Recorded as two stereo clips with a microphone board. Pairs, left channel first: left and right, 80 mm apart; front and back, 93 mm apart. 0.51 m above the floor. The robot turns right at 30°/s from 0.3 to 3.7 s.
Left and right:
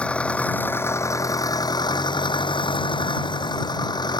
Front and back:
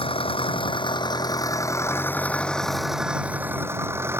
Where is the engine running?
15° left; by 4.2 s 115° left.